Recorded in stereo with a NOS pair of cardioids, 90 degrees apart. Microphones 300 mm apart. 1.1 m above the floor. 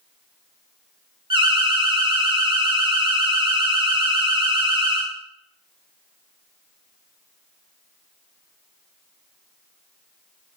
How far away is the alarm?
About 0.5 m.